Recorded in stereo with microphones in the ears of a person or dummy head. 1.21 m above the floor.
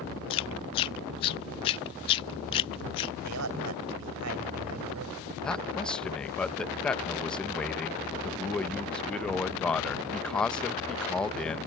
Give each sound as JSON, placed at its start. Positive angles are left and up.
{"t": 0.3, "sound": "chewing", "side_deg": 30}
{"t": 3.2, "sound": "a man speaking", "side_deg": -85}
{"t": 5.4, "sound": "a man speaking", "side_deg": 10}